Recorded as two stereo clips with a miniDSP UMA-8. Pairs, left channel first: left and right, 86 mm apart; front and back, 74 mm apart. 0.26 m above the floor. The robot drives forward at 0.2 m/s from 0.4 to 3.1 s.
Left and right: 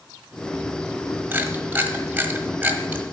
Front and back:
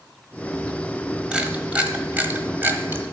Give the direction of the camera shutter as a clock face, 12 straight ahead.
4 o'clock.